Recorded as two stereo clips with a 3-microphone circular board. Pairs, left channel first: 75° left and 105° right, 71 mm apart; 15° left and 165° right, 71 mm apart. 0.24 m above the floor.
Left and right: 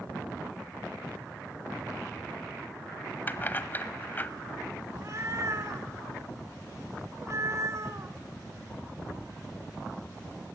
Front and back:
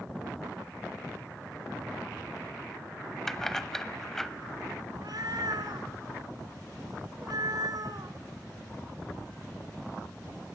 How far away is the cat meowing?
About 1.4 m.